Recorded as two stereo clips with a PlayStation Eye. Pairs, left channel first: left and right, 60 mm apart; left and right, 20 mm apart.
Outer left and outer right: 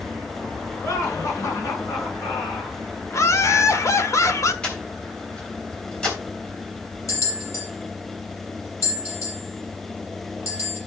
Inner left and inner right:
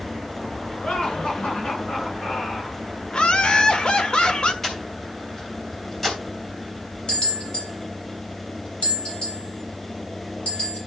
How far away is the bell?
About 6.5 m.